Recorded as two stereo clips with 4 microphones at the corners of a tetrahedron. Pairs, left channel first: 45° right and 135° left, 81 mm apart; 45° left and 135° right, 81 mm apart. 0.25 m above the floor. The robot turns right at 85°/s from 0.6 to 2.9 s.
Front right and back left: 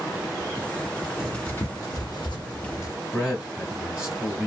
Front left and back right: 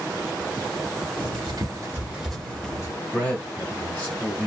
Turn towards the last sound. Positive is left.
turn(degrees=80)